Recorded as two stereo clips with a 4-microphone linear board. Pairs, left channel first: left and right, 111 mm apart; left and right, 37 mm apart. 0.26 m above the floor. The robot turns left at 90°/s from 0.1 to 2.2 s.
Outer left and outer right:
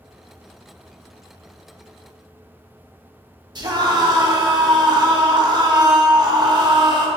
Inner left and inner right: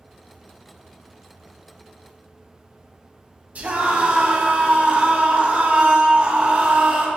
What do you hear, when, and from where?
3.5 s a scream: 45° right (ahead or behind), 1.9 m